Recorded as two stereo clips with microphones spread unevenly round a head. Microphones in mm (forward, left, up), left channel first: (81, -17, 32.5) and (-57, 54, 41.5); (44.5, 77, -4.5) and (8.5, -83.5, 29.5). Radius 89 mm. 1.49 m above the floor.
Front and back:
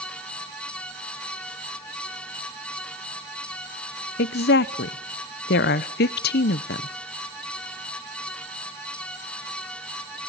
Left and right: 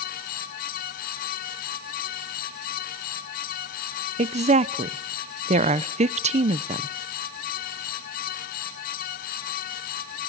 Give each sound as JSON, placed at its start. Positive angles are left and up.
{"t": 4.2, "sound": "a woman speaking", "azimuth_deg": -50, "distance_m": 0.9}